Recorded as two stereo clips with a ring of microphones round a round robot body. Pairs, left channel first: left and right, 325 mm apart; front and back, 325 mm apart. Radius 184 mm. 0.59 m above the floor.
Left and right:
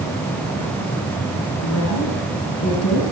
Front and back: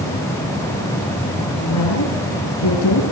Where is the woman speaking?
45° left, 6 m.